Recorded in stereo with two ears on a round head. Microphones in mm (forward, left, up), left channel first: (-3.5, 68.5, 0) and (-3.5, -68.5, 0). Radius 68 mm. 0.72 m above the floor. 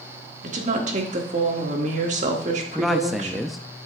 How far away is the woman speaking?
About 1.5 m.